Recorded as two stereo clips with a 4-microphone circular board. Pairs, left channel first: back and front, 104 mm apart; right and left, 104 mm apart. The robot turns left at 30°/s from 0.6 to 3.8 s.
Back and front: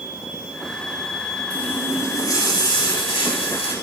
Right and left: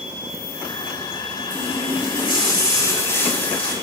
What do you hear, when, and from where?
1.5 s a running tap: 105° right, 5.5 m; by 3.7 s 175° right, 5.5 m